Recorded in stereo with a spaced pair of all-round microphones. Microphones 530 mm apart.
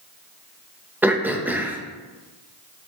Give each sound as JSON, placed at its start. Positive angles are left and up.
{"t": 1.0, "sound": "throat clearing", "side_deg": -5, "distance_m": 0.6}